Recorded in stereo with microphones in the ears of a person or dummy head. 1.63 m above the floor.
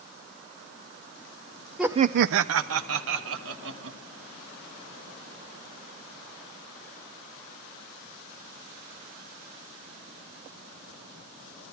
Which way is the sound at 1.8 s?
Centre (ahead or behind).